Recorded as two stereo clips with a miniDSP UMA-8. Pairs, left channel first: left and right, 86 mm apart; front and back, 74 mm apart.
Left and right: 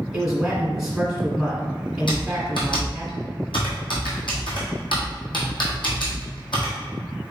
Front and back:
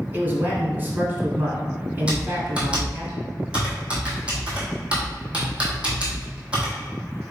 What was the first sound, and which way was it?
A man speaking, 165° right.